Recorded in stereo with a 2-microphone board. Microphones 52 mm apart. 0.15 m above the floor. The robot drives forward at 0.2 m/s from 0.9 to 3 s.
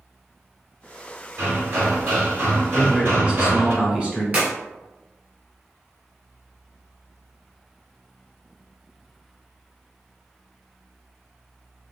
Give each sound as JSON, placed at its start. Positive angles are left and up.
{"t": 1.4, "sound": "hammering", "side_deg": -50, "distance_m": 1.7}
{"t": 2.7, "sound": "a man speaking", "side_deg": -20, "distance_m": 1.0}
{"t": 4.3, "sound": "a clap", "side_deg": -30, "distance_m": 1.9}